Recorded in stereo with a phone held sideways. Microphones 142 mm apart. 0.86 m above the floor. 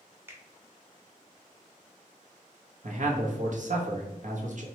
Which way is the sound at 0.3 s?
15° right (ahead or behind).